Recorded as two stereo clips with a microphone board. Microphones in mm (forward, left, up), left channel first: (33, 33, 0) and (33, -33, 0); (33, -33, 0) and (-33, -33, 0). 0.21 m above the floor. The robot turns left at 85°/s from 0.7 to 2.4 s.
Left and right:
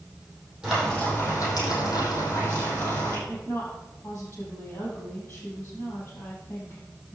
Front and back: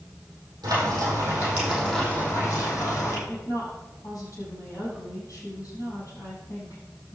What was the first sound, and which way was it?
Frying, 170° right.